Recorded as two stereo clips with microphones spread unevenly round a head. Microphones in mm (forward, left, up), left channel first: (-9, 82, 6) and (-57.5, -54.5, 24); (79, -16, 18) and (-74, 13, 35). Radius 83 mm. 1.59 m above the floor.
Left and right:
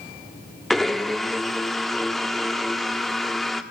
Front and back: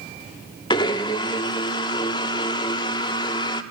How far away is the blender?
About 1.2 m.